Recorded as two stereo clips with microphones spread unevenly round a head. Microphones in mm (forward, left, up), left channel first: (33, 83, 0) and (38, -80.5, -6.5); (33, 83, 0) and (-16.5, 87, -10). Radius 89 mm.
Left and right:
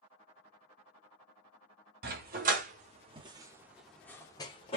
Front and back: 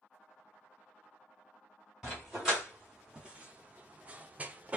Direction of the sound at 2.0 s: 95° right.